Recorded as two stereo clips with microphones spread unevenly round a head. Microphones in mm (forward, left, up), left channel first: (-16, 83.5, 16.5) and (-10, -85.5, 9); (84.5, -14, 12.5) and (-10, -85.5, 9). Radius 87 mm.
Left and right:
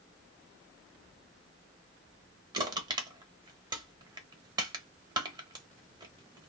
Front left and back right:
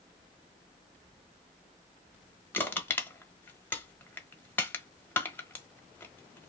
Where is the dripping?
No dripping in this recording.